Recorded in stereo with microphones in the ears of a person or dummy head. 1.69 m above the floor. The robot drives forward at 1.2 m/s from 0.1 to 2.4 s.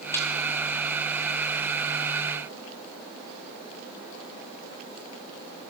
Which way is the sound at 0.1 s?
10° left (ahead or behind).